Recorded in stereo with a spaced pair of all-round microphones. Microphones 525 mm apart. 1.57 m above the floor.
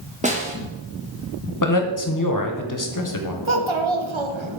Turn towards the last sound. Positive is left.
turn(degrees=-60)  # may be behind; listen again after turning